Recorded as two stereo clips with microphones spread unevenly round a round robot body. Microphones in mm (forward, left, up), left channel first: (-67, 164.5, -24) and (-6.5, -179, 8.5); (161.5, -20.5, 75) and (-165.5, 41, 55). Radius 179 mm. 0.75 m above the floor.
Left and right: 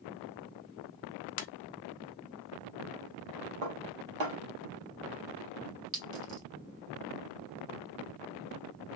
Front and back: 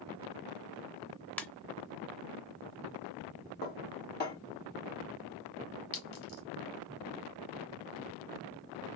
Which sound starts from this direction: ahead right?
A clink, at 5.9 s.